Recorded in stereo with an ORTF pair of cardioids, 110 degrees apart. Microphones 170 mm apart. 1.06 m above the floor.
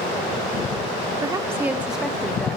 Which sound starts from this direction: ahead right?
A woman speaking, at 1.2 s.